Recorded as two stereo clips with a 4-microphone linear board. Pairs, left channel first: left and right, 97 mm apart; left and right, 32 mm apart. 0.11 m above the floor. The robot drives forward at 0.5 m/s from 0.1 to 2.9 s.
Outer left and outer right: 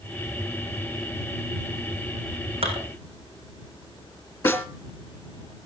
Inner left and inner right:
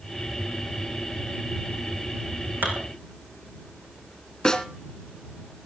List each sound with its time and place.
2.6 s dishes clattering: 80° right, 5 m
4.5 s a snare drum: 20° left (ahead or behind), 1.7 m